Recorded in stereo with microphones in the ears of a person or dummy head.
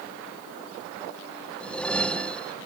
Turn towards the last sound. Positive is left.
turn(degrees=10)  # may be behind; listen again after turning